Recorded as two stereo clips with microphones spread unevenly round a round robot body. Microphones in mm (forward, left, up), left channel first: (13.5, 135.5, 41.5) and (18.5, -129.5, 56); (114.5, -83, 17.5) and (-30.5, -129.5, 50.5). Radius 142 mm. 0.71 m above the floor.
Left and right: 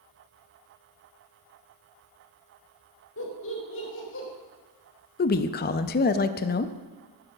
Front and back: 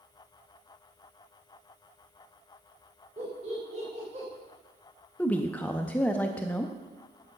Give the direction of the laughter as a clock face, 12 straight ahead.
8 o'clock.